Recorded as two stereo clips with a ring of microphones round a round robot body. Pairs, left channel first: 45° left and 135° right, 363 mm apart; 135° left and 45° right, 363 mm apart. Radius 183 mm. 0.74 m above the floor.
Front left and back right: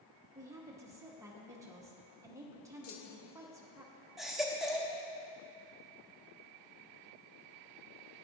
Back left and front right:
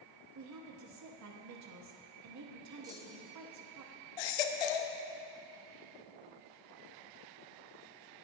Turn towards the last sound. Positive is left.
turn(degrees=135)